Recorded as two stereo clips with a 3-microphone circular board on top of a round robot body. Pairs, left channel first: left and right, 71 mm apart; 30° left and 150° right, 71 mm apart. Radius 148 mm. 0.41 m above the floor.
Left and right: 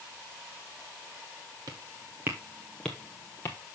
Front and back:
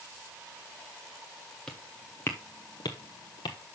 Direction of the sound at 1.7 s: 50° right.